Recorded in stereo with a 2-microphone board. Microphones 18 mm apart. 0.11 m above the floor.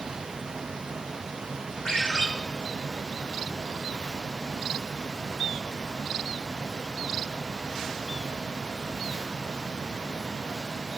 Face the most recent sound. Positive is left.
turn(degrees=45)  # may be behind; listen again after turning